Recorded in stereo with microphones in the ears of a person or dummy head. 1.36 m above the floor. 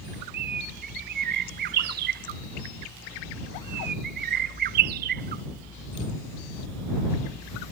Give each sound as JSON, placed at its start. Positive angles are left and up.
{"t": 0.3, "sound": "a bird", "side_deg": -45}